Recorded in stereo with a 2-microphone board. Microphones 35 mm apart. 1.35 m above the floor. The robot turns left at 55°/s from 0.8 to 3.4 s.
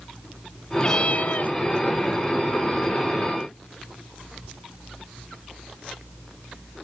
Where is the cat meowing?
150° left; by 1.6 s 110° left.